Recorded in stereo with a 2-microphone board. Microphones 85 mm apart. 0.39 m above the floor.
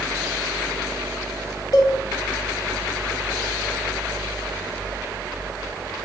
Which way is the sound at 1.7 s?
45° left (ahead or behind).